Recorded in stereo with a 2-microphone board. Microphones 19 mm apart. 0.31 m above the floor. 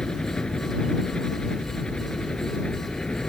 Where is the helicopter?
60° left (ahead or behind); by 3.3 s 55° left (ahead or behind).